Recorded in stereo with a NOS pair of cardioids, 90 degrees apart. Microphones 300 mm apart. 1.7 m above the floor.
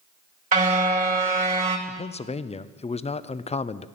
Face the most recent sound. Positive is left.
turn(degrees=20)